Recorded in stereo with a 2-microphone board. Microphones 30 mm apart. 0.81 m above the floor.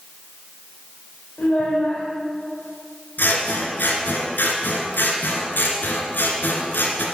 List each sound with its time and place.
1.4 s a child speaking: 85° left, 1.8 m
3.2 s scissors: 70° left (ahead or behind), 1.9 m